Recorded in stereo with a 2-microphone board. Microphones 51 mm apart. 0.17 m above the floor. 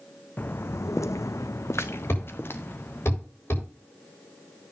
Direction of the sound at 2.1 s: 50° left (ahead or behind).